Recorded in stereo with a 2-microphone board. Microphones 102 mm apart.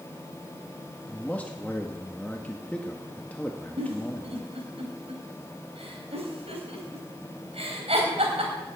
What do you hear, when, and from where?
1.1 s a man speaking: 15° left (ahead or behind), 1.2 m
3.8 s a giggle: 85° right, 3 m